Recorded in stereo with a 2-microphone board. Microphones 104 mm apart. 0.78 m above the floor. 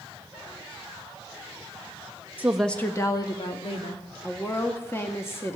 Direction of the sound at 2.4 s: 15° right (ahead or behind).